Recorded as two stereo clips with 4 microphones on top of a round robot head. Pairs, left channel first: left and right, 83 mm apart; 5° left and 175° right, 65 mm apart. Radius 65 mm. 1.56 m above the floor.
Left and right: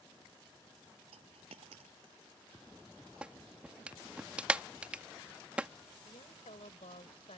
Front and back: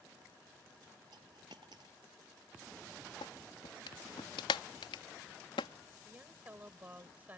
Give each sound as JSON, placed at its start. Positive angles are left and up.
{"t": 1.1, "sound": "a dropped coin", "azimuth_deg": -125}
{"t": 3.2, "sound": "a clap", "azimuth_deg": -15}
{"t": 6.0, "sound": "a woman speaking", "azimuth_deg": 115}